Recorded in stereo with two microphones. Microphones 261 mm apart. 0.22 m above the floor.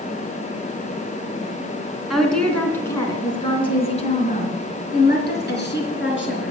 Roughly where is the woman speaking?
Centre.